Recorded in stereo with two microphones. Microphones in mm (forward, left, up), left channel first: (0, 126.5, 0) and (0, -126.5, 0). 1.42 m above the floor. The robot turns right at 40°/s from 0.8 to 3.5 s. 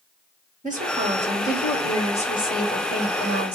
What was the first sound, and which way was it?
A woman speaking, 30° right.